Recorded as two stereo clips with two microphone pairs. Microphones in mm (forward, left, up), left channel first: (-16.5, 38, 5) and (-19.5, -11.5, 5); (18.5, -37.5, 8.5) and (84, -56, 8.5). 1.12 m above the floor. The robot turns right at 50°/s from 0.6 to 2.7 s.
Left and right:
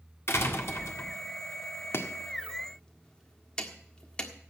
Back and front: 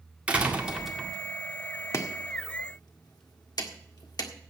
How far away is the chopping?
About 1.6 m.